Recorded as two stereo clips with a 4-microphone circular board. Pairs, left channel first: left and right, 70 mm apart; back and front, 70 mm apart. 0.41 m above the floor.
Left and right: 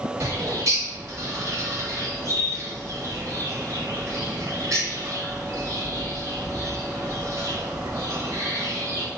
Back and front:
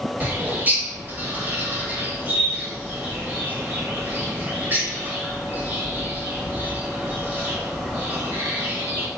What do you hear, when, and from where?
0.2 s a bird: 60° right, 1.0 m